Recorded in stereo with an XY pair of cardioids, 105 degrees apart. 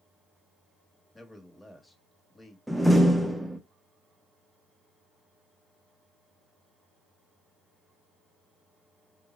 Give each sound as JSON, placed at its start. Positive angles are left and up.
{"t": 1.1, "sound": "a man speaking", "azimuth_deg": 15, "distance_m": 1.0}
{"t": 2.7, "sound": "a door slam", "azimuth_deg": 0, "distance_m": 0.5}